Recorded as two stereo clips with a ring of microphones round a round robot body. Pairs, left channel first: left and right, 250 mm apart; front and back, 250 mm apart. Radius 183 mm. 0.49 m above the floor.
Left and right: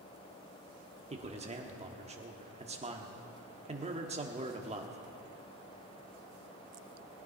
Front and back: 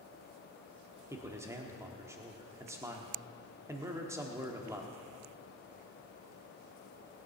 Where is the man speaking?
115° right, 1.1 m.